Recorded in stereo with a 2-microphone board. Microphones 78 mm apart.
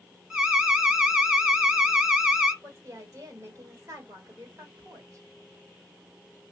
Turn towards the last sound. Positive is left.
turn(degrees=-45)  # may be behind; listen again after turning